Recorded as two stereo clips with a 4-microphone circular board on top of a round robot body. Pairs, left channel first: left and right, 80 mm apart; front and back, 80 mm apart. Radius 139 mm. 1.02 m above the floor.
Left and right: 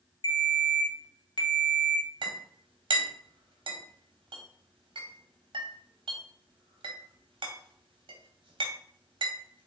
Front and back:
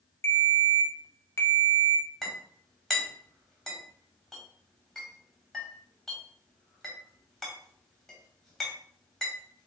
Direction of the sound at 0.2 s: 55° left.